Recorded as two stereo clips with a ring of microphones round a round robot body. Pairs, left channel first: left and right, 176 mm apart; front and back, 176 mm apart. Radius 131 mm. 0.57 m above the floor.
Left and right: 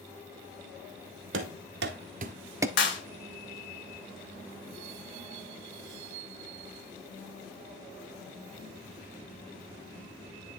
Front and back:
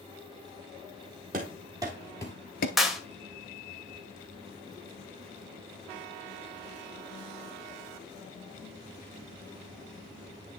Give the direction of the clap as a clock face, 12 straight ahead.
9 o'clock.